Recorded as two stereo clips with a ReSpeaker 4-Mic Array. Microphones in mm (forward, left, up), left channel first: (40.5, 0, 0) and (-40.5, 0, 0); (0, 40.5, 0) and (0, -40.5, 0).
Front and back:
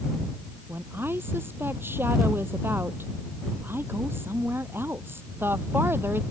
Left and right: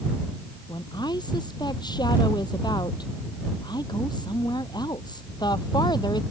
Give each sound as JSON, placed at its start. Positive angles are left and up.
{"t": 0.7, "sound": "a woman speaking", "azimuth_deg": 120}